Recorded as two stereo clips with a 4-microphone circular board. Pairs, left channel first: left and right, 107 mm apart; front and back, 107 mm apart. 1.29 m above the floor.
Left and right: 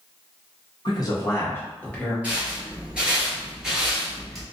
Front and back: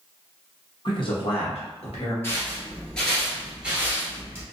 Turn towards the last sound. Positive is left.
turn(degrees=180)